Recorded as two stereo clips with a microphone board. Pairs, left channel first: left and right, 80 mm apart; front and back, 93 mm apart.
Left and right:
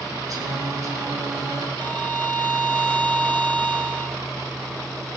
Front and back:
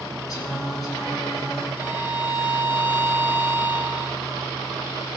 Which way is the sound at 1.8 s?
25° left.